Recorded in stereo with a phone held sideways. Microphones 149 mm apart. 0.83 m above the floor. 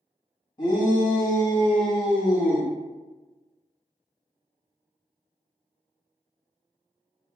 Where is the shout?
30° left (ahead or behind), 1.7 m; by 2.7 s 20° right (ahead or behind), 1.4 m.